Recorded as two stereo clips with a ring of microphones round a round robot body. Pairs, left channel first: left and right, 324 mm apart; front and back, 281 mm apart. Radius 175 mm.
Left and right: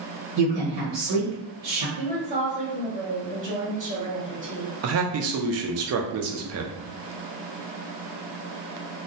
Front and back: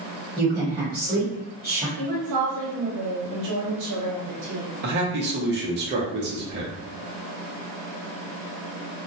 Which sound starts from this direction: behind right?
A man speaking, at 4.8 s.